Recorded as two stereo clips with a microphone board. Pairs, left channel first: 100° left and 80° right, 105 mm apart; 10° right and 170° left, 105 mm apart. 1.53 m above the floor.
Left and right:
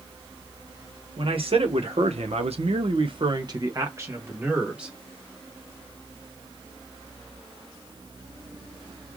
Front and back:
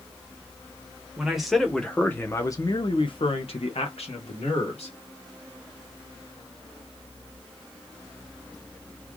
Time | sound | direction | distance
1.2 | a man speaking | 105° right | 1.3 m